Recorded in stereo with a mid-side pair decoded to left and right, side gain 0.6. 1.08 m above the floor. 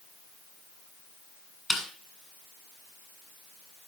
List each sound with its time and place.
1.7 s a snare drum: 5° left, 8 m